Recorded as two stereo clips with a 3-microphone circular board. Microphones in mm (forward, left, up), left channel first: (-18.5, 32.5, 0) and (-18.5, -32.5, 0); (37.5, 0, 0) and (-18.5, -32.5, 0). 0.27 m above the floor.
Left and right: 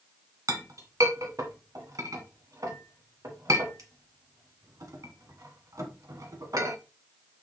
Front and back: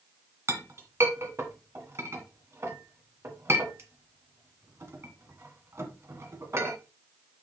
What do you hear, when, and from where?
0.5 s a clink: 110° right, 1.5 m